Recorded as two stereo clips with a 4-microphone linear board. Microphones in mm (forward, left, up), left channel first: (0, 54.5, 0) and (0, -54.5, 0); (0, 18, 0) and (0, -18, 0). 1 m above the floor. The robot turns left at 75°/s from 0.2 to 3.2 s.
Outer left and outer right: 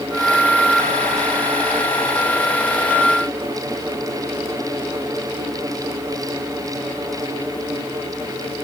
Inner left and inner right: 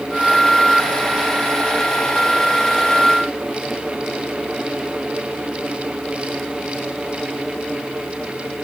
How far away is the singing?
No singing in this recording.